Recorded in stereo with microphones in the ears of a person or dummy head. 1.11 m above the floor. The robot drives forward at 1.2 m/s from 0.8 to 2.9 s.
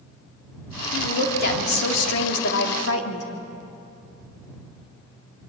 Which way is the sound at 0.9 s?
55° left (ahead or behind).